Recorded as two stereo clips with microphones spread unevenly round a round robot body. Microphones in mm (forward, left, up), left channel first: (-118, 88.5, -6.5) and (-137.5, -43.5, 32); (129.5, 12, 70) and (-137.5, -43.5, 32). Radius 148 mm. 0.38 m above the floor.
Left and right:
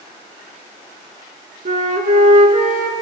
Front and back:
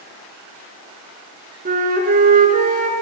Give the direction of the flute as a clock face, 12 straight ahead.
3 o'clock.